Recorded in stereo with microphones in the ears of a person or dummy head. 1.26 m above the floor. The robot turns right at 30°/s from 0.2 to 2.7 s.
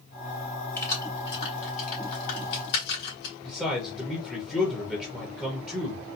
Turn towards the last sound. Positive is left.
turn(degrees=0)  # may be behind; listen again after turning